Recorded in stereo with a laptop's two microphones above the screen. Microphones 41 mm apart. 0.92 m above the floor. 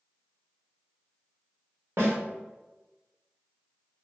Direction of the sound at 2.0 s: 75° right (ahead or behind).